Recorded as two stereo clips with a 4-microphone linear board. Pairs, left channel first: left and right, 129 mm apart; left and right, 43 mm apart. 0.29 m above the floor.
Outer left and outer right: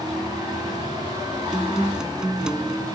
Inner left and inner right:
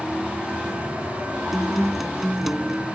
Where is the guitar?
5° right (ahead or behind).